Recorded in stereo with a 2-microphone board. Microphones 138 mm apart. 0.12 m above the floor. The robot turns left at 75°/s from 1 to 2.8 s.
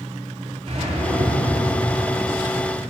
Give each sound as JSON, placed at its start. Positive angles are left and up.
{"t": 0.7, "sound": "a whoosh", "azimuth_deg": -90, "distance_m": 1.0}